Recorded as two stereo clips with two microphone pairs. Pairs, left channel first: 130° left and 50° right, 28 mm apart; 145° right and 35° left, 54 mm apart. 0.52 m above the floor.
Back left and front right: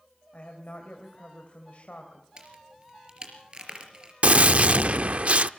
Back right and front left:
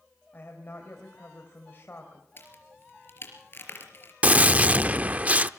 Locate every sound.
0.3 s a woman speaking: 165° left, 2.5 m
2.4 s a crack: 100° right, 3.5 m
4.2 s a gunshot: 15° right, 0.5 m